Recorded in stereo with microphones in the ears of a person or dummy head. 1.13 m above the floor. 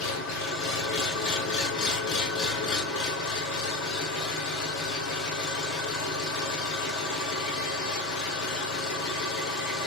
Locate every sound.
0.0 s an engine running: 70° left (ahead or behind), 1.2 m